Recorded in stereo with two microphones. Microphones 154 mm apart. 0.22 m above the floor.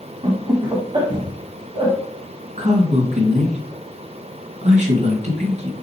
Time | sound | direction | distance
0.2 | laughter | 30° right (ahead or behind) | 1.3 m
2.6 | a man speaking | 50° right (ahead or behind) | 2 m